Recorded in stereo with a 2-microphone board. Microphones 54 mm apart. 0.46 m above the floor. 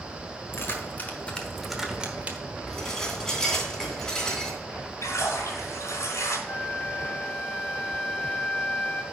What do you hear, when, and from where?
0.5 s keys jangling: 50° left (ahead or behind), 1.5 m; by 2.4 s 30° right (ahead or behind), 1.3 m
2.7 s dishes clattering: 10° left (ahead or behind), 2.5 m
5.0 s a splash: 75° left (ahead or behind), 2 m
6.5 s a flute: 50° left (ahead or behind), 0.9 m